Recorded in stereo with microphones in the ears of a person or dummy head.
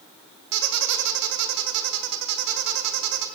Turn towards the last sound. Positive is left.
turn(degrees=-65)  # may be behind; listen again after turning